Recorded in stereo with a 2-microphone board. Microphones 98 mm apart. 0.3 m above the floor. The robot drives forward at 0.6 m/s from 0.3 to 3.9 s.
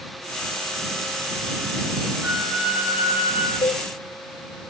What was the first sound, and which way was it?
A flute, 20° right (ahead or behind).